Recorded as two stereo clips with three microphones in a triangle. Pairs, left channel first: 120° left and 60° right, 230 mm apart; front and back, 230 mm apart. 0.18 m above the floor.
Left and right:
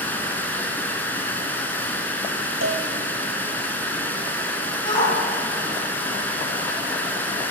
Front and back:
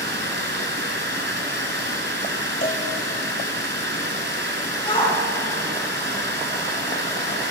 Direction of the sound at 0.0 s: 160° right.